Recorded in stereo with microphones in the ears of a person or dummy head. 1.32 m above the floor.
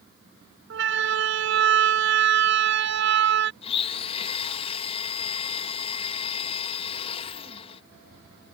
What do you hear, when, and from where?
0.7 s a siren: 60° right (ahead or behind); by 3.5 s 55° right (ahead or behind)
3.6 s a blender: 30° left (ahead or behind)